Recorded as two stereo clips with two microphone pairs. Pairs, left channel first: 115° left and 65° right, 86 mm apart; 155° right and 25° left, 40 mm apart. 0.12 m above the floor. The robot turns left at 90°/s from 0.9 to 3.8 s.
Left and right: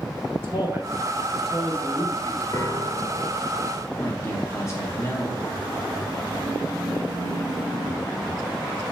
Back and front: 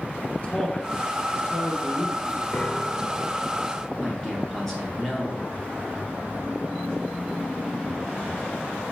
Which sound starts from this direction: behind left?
A man speaking, at 4.0 s.